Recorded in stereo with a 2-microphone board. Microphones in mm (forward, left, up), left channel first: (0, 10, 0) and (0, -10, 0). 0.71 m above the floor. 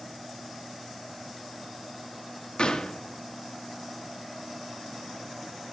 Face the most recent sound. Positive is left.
turn(degrees=55)  # may be behind; listen again after turning